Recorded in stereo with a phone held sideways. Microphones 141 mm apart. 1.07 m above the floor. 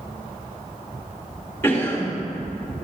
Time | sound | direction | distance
1.6 | a cough | 15° left (ahead or behind) | 2.5 m